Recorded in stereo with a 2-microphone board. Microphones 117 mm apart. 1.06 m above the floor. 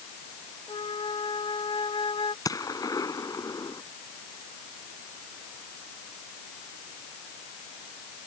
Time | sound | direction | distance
0.7 | a flute | 50° left (ahead or behind) | ?
2.5 | a gunshot | 30° left (ahead or behind) | ?